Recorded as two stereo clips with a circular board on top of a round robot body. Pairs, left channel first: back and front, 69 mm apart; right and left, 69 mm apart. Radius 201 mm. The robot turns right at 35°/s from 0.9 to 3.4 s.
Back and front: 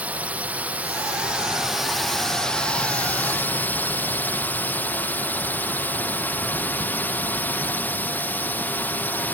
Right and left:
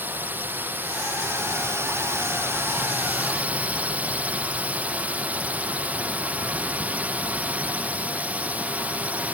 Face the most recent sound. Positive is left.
turn(degrees=140)